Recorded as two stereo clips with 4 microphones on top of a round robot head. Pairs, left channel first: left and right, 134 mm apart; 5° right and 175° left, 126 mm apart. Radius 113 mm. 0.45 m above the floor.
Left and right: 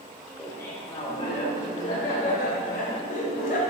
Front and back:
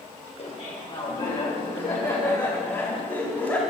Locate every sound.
0.4 s laughter: 20° left, 2 m; by 3.6 s 65° left, 3 m